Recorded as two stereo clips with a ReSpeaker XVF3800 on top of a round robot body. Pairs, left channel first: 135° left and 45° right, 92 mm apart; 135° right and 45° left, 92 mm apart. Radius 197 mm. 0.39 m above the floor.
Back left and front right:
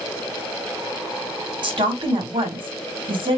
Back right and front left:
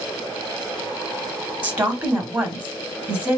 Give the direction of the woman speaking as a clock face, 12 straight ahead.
1 o'clock.